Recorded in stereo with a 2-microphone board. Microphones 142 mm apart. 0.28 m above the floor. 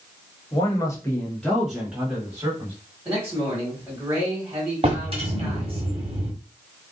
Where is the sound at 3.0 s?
10° right (ahead or behind), 1.6 m.